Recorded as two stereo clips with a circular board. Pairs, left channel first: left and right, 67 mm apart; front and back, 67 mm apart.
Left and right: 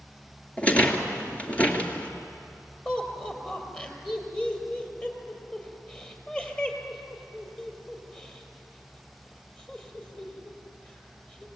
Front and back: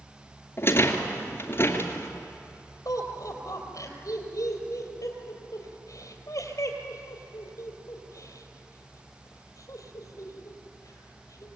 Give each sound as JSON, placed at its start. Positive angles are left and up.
{"t": 0.6, "sound": "a rattle", "azimuth_deg": 30, "distance_m": 2.0}
{"t": 2.9, "sound": "laughter", "azimuth_deg": 20, "distance_m": 3.5}